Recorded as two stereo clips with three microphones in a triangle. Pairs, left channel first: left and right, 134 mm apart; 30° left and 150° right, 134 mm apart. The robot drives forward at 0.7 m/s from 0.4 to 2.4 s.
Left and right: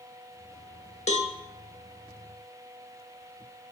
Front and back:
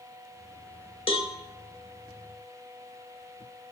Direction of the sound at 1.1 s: 65° left.